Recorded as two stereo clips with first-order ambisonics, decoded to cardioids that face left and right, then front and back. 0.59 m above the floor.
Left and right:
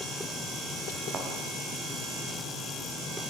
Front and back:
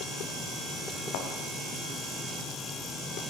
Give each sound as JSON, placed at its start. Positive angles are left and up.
{"t": 1.1, "sound": "a thud", "azimuth_deg": -25, "distance_m": 4.0}